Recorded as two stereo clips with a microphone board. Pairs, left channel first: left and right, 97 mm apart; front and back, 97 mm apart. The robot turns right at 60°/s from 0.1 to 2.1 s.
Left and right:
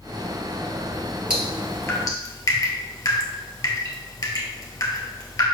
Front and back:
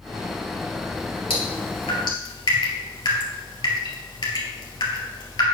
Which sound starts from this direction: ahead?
Dripping, at 1.3 s.